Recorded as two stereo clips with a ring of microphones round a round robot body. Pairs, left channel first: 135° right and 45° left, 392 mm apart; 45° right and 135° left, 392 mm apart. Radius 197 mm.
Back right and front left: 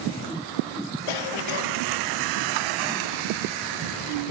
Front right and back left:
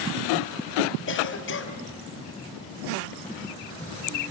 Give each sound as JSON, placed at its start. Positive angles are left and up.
{"t": 1.1, "sound": "a cough", "azimuth_deg": -105, "distance_m": 4.5}